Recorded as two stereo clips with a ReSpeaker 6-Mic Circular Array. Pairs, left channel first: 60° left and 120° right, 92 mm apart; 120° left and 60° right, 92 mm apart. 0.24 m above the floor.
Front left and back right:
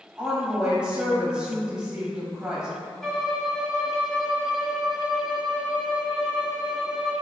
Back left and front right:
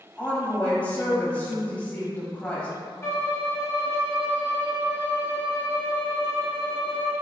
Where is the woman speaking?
175° left, 1.0 m.